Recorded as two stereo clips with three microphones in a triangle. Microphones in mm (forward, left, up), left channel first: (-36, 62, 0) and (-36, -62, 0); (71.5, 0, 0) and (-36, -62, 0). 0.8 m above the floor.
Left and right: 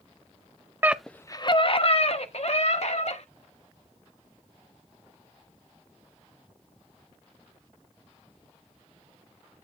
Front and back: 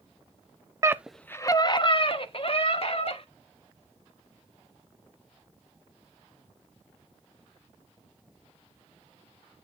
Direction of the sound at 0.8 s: 135° right.